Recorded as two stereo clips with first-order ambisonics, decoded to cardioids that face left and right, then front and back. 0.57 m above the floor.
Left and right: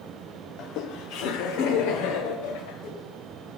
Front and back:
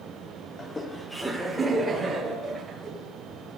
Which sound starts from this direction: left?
Laughter, at 0.6 s.